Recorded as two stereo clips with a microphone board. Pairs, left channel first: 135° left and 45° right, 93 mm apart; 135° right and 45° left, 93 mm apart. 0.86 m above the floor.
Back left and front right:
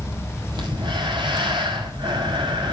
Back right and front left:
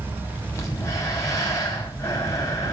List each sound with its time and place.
0.5 s breathing: 80° right, 5.5 m